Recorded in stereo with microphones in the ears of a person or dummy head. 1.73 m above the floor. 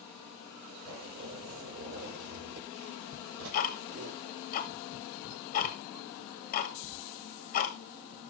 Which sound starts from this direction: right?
A zipper, at 0.8 s.